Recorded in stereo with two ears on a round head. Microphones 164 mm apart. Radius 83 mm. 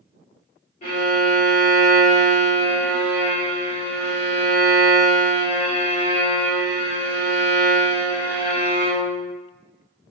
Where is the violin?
45° left (ahead or behind), 1.2 m.